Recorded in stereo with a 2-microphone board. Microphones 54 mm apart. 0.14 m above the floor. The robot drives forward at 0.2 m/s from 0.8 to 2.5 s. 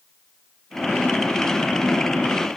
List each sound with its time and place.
Only background noise.